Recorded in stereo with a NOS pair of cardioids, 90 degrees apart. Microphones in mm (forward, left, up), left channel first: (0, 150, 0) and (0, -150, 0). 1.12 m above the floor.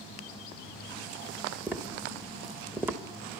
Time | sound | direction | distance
1.7 | tapping | 5° right | 1.3 m